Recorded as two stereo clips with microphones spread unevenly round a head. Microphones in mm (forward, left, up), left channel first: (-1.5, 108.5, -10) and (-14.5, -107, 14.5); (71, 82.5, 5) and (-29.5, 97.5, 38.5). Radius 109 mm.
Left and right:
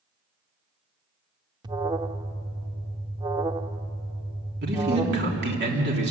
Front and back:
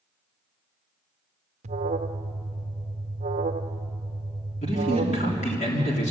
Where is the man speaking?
50° right, 3.5 m.